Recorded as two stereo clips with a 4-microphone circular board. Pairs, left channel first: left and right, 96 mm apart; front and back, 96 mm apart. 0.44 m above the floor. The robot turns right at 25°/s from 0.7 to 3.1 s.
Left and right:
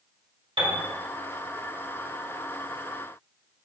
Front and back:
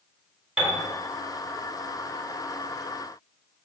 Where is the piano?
95° right, 1.8 m.